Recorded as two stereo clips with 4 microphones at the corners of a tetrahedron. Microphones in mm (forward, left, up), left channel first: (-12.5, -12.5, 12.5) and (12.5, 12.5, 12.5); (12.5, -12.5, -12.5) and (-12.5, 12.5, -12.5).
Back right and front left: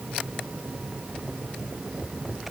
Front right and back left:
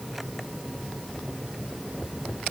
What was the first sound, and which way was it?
Only background noise.